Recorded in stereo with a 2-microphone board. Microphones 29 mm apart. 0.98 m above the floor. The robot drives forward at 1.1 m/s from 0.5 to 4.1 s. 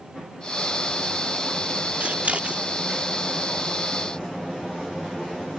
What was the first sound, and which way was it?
Scissors, 60° right (ahead or behind).